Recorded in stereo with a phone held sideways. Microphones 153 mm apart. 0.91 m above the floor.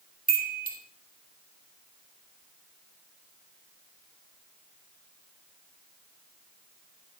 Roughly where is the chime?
Right.